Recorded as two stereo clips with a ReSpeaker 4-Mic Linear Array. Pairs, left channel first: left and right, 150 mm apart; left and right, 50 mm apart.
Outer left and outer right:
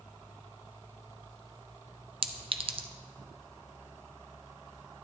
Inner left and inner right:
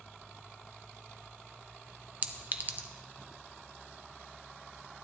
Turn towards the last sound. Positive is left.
turn(degrees=-35)  # may be behind; listen again after turning